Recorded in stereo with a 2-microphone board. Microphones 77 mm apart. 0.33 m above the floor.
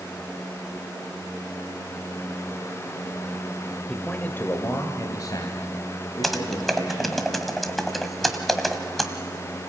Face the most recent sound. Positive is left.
turn(degrees=0)  # may be behind; listen again after turning